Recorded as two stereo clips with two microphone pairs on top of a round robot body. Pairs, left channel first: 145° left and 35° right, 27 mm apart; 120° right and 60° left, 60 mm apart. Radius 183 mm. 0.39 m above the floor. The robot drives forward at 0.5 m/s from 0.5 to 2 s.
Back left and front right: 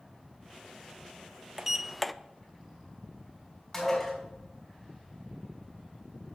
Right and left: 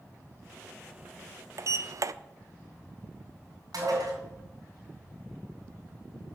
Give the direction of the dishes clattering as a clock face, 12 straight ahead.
10 o'clock.